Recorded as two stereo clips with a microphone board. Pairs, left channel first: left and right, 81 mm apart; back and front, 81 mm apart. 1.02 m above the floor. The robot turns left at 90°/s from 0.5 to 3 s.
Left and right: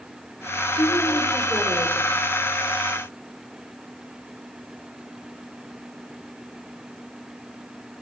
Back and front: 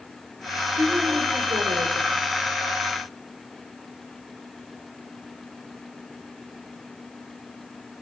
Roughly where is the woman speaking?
Left.